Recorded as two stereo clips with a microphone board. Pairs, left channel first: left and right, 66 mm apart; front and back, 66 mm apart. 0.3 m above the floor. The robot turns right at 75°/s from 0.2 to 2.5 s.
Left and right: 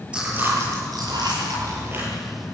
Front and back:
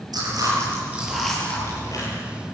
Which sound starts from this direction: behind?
Chewing, at 0.1 s.